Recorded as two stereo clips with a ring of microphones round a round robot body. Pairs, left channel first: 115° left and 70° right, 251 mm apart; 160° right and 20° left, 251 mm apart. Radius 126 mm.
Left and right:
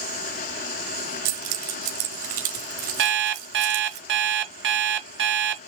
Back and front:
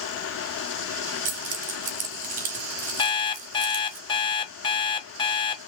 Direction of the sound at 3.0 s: 90° right.